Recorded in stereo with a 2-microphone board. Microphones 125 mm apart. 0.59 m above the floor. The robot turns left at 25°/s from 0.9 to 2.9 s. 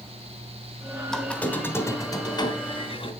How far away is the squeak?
About 1.7 m.